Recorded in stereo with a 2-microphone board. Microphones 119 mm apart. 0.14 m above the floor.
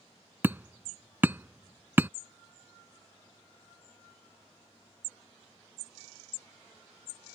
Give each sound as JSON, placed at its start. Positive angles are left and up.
{"t": 0.4, "sound": "hammering", "side_deg": -20}